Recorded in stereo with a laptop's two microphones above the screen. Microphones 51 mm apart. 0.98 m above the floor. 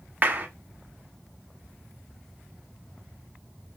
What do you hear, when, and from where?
0.2 s a clap: 30° right (ahead or behind), 0.9 m